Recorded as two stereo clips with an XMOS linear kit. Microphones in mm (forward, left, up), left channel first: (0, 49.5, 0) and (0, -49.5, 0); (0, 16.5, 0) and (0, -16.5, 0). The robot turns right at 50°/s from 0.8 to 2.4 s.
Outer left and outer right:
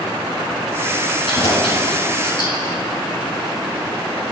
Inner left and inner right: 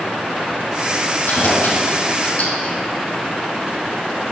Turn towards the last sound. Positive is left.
turn(degrees=45)  # may be behind; listen again after turning